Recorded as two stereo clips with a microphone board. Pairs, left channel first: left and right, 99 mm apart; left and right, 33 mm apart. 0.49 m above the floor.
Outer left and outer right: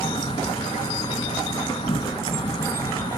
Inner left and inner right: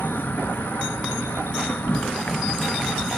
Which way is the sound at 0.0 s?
65° left (ahead or behind).